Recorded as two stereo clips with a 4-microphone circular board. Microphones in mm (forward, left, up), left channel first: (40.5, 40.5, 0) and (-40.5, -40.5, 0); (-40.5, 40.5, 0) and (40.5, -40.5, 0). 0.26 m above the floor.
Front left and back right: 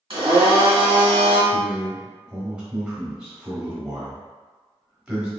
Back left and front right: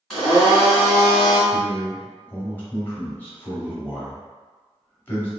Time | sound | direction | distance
0.1 | a blender | 135° right | 1.6 m
1.5 | a man speaking | 155° left | 0.9 m